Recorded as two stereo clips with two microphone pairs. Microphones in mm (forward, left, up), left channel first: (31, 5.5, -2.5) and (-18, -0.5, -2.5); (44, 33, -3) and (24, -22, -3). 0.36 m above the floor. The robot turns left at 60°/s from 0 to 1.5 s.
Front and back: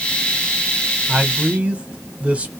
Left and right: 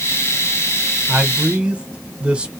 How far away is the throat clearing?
I don't hear throat clearing.